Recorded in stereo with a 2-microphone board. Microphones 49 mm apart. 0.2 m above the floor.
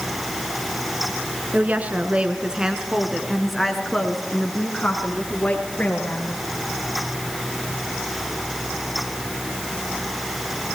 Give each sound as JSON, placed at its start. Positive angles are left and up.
{"t": 1.5, "sound": "a woman speaking", "side_deg": -35, "distance_m": 2.5}